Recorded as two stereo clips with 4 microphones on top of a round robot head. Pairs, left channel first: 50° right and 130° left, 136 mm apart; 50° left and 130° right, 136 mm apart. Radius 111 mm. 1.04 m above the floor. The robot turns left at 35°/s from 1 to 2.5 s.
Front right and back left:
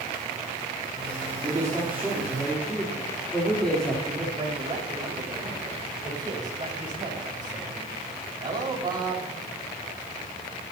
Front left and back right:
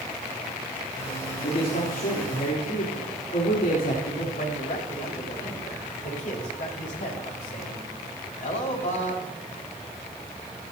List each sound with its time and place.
1.4 s a man speaking: 70° left, 3.5 m; by 4.2 s 35° left, 3.5 m
4.3 s a man speaking: 70° left, 5 m